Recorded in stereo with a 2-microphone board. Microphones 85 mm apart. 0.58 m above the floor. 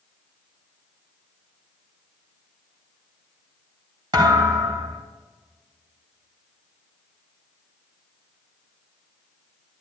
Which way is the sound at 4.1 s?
55° right (ahead or behind).